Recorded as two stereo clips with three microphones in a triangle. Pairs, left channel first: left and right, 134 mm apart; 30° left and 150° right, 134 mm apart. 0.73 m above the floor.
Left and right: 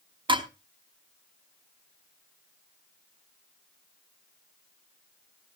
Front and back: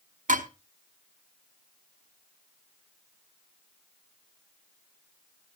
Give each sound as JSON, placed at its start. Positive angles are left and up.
{"t": 0.3, "sound": "dishes clattering", "azimuth_deg": -145, "distance_m": 0.9}